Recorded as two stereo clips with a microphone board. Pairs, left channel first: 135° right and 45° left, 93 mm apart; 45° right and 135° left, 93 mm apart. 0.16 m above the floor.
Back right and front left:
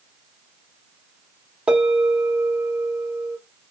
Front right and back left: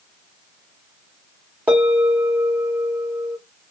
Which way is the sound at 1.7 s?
95° left.